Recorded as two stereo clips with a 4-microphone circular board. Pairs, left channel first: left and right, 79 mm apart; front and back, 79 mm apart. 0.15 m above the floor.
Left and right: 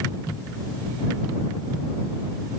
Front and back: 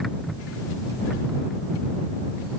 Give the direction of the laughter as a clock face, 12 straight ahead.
No laughter in this recording.